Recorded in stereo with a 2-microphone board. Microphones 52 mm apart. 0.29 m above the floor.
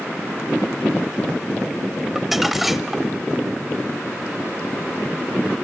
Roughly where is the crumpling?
Centre.